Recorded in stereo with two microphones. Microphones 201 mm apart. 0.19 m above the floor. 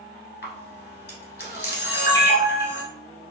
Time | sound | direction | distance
0.4 | a camera shutter | 55° left (ahead or behind) | 1.0 m